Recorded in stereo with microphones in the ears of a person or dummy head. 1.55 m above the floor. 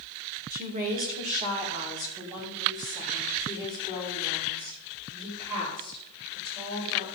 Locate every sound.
0.5 s a woman speaking: 45° right (ahead or behind), 1.7 m; by 7.1 s 25° right (ahead or behind), 8 m